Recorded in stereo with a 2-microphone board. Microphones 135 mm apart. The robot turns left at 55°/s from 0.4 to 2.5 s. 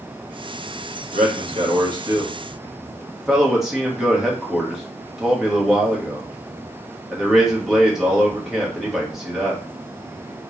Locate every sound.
1.1 s a man speaking: 65° right (ahead or behind), 1.4 m; by 9.6 s 5° right (ahead or behind), 1.4 m